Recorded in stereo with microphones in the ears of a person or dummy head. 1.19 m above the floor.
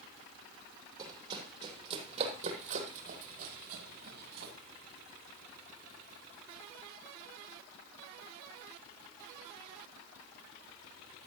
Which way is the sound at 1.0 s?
25° right (ahead or behind).